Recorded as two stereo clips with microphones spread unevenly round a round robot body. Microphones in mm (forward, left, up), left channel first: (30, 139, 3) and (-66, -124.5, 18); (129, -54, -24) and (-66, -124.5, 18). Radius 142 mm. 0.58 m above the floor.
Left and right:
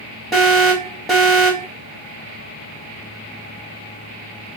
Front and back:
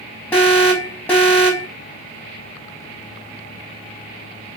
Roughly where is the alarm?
Ahead.